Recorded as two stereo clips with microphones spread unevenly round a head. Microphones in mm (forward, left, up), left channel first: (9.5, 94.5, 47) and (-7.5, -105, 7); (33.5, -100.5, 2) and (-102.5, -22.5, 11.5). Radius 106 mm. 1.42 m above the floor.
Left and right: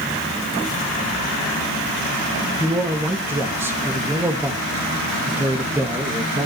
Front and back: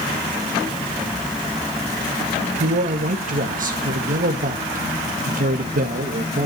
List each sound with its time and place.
2.6 s a man speaking: 175° right, 1.8 m